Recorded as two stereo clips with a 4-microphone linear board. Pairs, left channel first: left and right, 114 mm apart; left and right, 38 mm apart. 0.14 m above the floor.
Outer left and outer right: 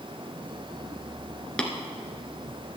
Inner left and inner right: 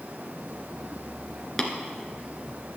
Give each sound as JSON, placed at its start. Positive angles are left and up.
{"t": 1.6, "sound": "tapping", "side_deg": 10, "distance_m": 1.7}